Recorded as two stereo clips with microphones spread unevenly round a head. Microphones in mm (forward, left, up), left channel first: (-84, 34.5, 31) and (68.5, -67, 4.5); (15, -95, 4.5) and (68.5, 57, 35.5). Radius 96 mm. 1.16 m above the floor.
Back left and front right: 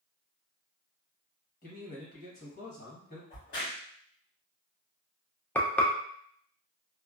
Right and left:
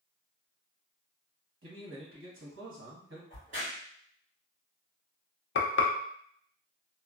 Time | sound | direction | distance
1.6 | a man speaking | 95° left | 1.3 m
3.3 | a crack | 105° left | 1.8 m
5.5 | frying | 130° right | 0.5 m